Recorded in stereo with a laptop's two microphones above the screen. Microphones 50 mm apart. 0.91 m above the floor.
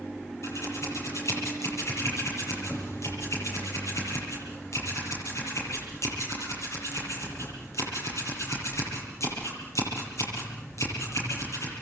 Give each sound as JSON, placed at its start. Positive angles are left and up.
{"t": 0.4, "sound": "scissors", "side_deg": 80, "distance_m": 9.0}